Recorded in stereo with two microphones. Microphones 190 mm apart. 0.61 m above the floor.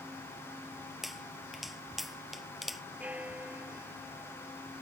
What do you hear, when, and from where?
1.0 s a pop: centre (ahead or behind)
3.0 s a bell: 5° right (ahead or behind)